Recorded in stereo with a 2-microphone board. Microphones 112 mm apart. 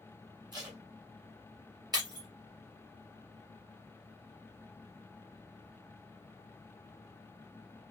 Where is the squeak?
No squeak in this recording.